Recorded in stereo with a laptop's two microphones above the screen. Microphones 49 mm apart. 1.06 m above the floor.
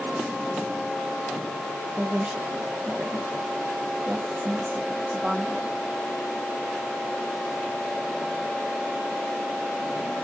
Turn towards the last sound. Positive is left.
turn(degrees=-25)  # may be behind; listen again after turning